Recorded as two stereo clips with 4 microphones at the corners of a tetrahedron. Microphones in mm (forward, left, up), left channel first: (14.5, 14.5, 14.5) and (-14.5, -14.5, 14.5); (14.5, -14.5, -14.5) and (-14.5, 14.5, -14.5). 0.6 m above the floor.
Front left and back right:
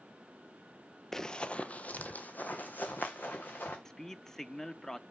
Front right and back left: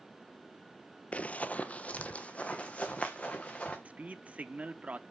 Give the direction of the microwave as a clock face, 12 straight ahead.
No microwave in this recording.